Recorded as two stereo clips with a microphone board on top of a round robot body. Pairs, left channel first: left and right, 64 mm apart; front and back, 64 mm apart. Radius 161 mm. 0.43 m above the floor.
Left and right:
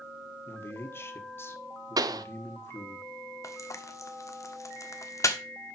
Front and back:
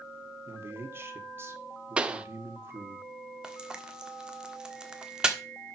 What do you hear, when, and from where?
0.5 s a man speaking: 135° left, 1.9 m
2.0 s a pop: 105° right, 0.8 m
3.4 s frying: 105° left, 1.6 m